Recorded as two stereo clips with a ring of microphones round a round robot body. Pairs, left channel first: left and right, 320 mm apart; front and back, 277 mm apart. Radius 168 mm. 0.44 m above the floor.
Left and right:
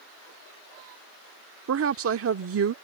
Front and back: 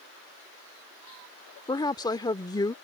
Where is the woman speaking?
70° right.